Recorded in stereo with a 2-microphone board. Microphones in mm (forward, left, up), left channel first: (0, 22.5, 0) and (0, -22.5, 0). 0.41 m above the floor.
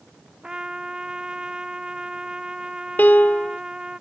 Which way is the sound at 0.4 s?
15° right (ahead or behind).